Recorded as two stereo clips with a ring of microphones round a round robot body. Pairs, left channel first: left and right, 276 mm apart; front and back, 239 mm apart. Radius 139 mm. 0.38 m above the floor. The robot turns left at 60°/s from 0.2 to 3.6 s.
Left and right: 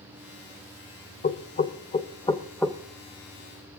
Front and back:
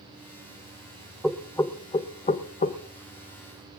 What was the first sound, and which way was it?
Knocking, 90° left.